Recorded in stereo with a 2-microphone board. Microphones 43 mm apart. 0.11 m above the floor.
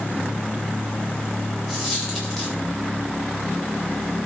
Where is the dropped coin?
10° left (ahead or behind), 8 m.